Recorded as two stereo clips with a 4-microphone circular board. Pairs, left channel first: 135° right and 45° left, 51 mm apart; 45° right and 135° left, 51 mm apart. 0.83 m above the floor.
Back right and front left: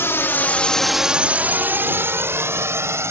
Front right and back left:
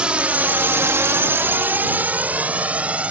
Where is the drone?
155° right; by 3.1 s 70° left.